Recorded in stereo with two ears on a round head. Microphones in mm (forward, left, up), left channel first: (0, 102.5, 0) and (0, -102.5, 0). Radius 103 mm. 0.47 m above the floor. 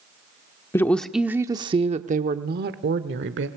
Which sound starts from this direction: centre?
A woman speaking, at 0.7 s.